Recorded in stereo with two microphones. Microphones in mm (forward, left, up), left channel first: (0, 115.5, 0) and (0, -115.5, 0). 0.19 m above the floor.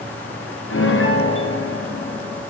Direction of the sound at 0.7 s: 65° left (ahead or behind).